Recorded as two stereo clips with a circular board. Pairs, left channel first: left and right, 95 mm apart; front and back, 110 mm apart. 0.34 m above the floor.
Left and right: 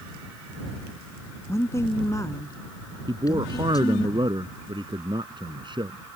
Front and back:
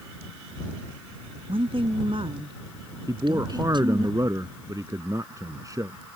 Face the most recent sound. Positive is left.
turn(degrees=-120)